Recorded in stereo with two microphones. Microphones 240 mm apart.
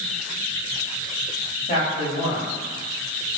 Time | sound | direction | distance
1.7 | a man speaking | 35° left (ahead or behind) | 1.9 m